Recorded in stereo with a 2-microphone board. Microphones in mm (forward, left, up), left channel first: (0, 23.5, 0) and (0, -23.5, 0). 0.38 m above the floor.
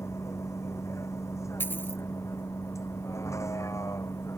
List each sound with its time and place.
0.0 s a vehicle: 85° left
1.6 s a dropped coin: 45° left (ahead or behind)